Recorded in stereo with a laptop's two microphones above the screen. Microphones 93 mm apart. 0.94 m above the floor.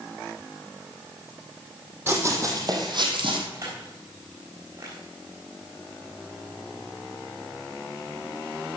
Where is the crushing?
40° right (ahead or behind), 4 m.